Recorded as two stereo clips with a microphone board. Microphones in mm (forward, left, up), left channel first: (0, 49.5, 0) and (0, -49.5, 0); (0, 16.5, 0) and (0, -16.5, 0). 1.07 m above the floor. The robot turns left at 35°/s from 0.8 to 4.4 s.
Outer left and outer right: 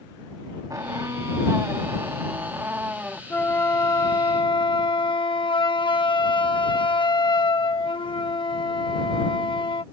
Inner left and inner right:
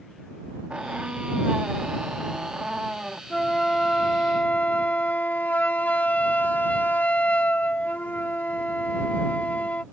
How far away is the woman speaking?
I don't hear a woman speaking.